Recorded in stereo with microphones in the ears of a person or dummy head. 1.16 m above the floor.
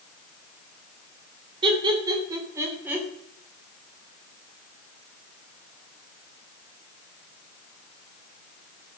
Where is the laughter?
30° right (ahead or behind), 3.5 m; by 3.1 s 10° right (ahead or behind), 3 m.